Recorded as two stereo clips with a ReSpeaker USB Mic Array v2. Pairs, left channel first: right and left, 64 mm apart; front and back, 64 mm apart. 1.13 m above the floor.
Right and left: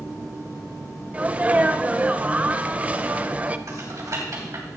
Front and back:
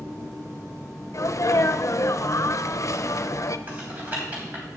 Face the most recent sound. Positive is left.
turn(degrees=115)